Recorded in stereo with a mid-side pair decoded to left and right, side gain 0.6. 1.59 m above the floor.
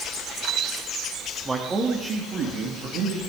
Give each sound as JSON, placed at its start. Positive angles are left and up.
{"t": 1.4, "sound": "a man speaking", "azimuth_deg": -25, "distance_m": 3.0}